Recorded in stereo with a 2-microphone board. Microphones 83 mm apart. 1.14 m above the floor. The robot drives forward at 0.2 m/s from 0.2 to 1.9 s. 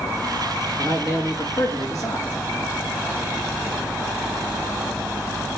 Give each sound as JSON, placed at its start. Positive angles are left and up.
{"t": 0.8, "sound": "a man speaking", "side_deg": 55, "distance_m": 2.0}